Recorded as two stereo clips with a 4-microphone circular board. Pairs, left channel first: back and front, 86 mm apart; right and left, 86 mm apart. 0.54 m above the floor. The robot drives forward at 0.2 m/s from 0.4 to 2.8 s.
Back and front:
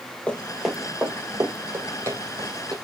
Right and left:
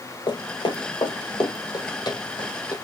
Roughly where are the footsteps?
Right.